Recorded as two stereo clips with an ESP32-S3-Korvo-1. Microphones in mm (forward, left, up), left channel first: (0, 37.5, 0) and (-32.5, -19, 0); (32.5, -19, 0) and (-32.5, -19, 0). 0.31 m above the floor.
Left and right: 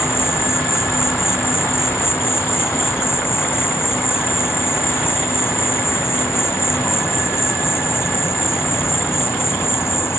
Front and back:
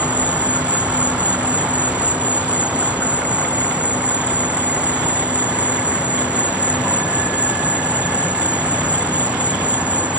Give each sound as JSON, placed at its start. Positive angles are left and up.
{"t": 0.0, "sound": "an insect", "azimuth_deg": 110}